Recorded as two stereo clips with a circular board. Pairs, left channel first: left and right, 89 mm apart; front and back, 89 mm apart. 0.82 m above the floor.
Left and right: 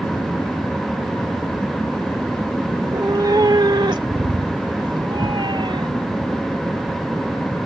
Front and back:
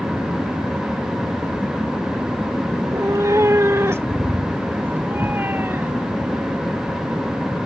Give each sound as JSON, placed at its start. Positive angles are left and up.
{"t": 2.8, "sound": "a cat meowing", "azimuth_deg": -135}